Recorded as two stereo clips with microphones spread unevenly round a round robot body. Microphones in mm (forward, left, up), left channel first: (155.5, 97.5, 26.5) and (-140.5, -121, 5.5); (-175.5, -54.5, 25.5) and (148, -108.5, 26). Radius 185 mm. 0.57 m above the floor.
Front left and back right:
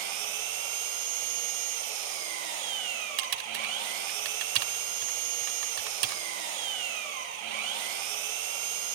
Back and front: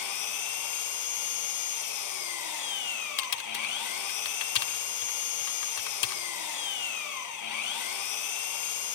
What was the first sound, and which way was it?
An engine running, 160° right.